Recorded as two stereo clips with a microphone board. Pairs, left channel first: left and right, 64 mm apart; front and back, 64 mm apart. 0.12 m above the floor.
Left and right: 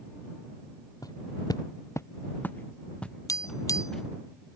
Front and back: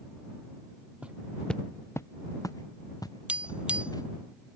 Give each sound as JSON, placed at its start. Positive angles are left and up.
{"t": 1.0, "sound": "footsteps", "azimuth_deg": 110}
{"t": 3.3, "sound": "tapping", "azimuth_deg": 110}